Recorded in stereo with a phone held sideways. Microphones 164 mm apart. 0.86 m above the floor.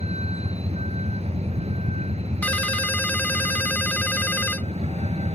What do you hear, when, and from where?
0.0 s a vehicle: 40° right (ahead or behind)
2.4 s a ringtone: 10° left (ahead or behind)